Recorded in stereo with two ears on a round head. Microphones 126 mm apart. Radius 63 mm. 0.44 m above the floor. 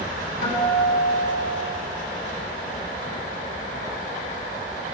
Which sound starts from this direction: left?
A guitar, at 0.4 s.